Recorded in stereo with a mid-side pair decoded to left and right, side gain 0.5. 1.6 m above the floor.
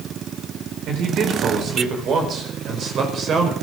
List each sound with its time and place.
0.9 s a man speaking: 65° right, 5 m; by 3.5 s 50° right, 5.5 m